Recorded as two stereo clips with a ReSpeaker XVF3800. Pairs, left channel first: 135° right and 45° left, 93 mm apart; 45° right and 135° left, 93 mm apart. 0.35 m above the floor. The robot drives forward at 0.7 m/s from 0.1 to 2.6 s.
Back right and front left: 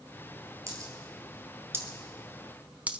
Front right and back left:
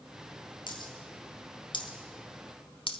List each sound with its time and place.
0.7 s a dropped coin: 10° right, 2 m; by 3.0 s 30° right, 0.8 m